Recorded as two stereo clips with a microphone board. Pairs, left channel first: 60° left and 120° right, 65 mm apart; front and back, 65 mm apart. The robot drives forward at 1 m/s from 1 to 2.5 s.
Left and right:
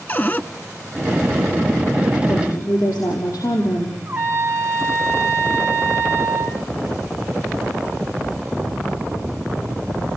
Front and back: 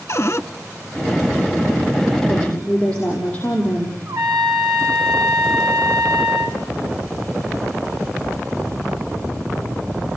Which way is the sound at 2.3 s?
65° left.